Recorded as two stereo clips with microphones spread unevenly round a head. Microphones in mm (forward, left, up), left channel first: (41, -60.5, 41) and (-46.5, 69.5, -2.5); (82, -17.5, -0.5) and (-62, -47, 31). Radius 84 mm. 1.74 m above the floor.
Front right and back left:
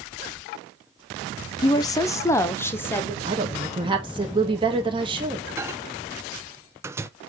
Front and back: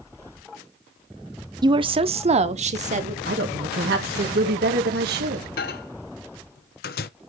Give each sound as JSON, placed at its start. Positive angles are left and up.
{"t": 1.6, "sound": "a woman speaking", "azimuth_deg": -115, "distance_m": 0.6}
{"t": 3.2, "sound": "a woman speaking", "azimuth_deg": -170, "distance_m": 2.0}
{"t": 5.6, "sound": "a microwave", "azimuth_deg": 40, "distance_m": 0.5}